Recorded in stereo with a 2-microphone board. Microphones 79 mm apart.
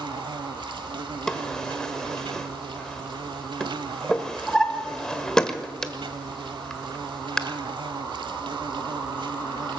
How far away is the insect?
About 0.9 m.